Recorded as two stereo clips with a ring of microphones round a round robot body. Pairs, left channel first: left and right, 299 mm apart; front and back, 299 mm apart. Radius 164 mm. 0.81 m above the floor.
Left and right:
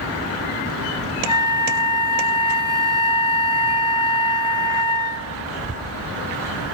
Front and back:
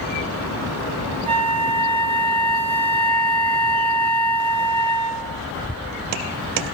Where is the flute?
140° left, 1.0 m.